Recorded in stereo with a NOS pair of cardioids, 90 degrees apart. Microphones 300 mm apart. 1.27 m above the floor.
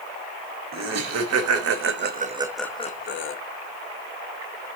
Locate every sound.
0.7 s laughter: 70° right, 1.3 m; by 3.4 s 50° left, 0.7 m